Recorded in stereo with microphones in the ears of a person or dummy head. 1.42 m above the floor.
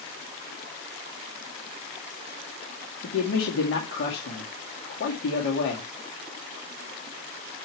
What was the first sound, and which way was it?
A man speaking, 70° left (ahead or behind).